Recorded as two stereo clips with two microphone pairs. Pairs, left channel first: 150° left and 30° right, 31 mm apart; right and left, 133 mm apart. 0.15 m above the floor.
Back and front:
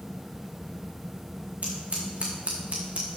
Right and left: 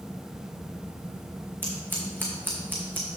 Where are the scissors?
15° left, 2 m.